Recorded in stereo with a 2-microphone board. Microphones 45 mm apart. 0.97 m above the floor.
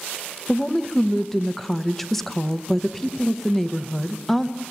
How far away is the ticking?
No ticking in this recording.